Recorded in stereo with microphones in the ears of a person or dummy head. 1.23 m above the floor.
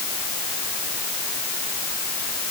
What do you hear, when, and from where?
Only background noise.